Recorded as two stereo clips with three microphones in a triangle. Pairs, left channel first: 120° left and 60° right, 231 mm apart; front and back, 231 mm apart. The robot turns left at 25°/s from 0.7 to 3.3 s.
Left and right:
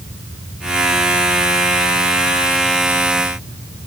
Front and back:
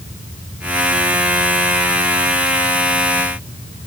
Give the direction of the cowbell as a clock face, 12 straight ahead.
I don't hear a cowbell.